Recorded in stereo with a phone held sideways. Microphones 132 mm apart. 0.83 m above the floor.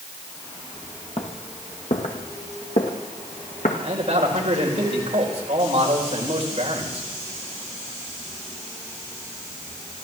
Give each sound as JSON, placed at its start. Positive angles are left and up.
{"t": 1.2, "sound": "footsteps", "side_deg": 55, "distance_m": 1.7}
{"t": 3.8, "sound": "a man speaking", "side_deg": -50, "distance_m": 4.0}